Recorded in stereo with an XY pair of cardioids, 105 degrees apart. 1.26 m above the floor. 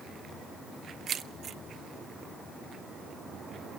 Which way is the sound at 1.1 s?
55° right.